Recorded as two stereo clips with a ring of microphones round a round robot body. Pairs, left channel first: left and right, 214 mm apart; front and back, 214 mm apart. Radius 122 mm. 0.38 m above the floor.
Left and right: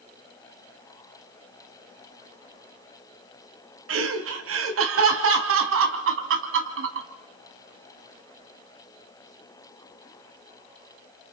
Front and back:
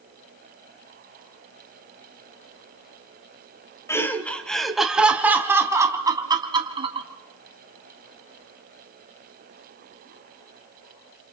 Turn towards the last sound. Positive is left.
turn(degrees=-115)